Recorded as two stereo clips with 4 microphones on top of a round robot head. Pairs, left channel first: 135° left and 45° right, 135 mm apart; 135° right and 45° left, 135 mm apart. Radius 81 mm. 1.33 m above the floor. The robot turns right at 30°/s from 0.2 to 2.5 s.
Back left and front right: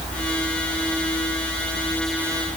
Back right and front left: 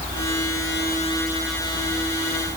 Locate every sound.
Only background noise.